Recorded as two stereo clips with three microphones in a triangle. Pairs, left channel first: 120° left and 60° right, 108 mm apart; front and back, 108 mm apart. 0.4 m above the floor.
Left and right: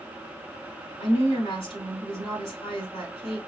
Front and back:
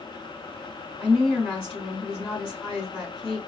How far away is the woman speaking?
About 3 m.